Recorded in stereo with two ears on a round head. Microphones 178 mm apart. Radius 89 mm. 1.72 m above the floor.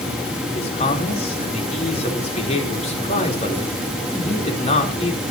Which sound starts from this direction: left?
A man speaking, at 0.6 s.